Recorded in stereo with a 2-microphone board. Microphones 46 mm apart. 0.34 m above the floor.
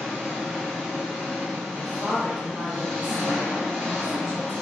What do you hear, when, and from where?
0.0 s an engine running: 10° left (ahead or behind), 1.3 m
1.7 s a woman speaking: 5° right (ahead or behind), 0.9 m